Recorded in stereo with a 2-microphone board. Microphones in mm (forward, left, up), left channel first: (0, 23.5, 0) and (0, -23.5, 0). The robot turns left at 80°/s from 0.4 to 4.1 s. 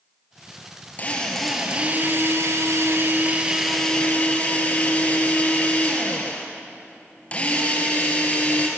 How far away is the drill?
About 3.5 m.